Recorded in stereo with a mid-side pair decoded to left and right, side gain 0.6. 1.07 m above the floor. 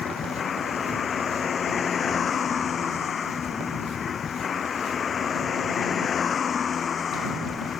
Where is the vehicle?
35° left.